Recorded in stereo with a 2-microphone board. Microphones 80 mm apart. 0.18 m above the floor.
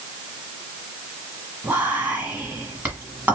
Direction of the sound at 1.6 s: 25° right (ahead or behind).